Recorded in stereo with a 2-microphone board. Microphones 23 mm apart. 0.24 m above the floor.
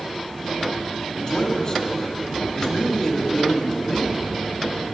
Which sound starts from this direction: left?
A man speaking, at 1.2 s.